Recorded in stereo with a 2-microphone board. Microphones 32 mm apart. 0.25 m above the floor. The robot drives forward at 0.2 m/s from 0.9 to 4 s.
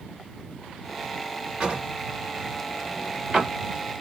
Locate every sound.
1.6 s a drawer: 30° right (ahead or behind), 1.7 m; by 3.5 s 25° right (ahead or behind), 2 m